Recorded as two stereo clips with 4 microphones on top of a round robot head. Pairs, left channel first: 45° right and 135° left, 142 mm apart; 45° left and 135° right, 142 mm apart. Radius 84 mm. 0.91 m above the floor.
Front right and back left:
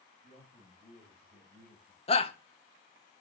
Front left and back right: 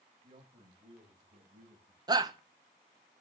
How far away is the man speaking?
About 6.5 m.